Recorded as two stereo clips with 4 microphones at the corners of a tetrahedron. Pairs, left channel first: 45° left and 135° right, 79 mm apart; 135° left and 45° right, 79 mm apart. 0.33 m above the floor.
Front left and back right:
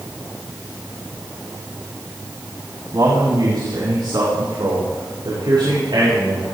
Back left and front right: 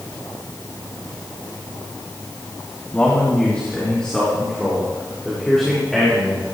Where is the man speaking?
155° right, 3 m; by 6.5 s 135° right, 8 m.